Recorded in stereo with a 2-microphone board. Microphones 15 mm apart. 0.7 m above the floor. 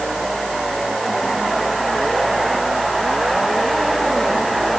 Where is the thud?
No thud in this recording.